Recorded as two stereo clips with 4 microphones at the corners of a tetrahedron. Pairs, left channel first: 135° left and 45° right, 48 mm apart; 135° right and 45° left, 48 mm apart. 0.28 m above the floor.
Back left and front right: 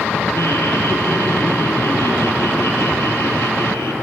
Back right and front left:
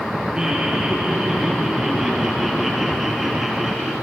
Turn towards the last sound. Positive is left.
turn(degrees=130)